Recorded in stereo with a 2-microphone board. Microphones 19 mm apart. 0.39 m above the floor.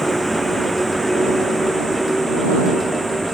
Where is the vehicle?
5° left (ahead or behind).